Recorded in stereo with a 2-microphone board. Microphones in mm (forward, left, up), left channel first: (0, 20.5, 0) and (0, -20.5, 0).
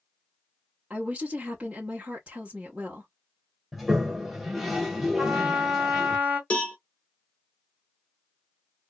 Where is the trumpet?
30° right (ahead or behind), 1.9 m.